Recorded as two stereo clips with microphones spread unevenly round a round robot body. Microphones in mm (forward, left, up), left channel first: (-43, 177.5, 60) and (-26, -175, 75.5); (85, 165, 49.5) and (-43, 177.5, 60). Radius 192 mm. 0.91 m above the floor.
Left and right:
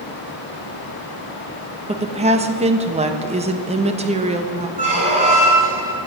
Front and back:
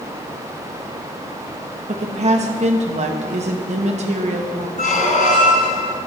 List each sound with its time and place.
1.9 s a woman speaking: 160° right, 0.9 m
4.8 s a squeak: 15° right, 1.5 m